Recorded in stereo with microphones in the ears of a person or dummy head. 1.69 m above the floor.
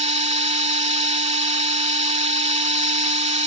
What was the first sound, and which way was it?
A machine running, 35° right (ahead or behind).